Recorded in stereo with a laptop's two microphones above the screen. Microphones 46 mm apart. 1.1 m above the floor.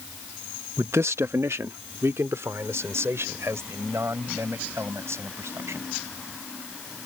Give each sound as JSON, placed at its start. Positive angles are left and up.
{"t": 0.8, "sound": "a man speaking", "side_deg": -85}